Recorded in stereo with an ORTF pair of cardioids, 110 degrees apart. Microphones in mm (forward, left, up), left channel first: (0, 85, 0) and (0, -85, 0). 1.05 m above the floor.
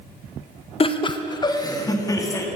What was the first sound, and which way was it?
Laughter, 35° left.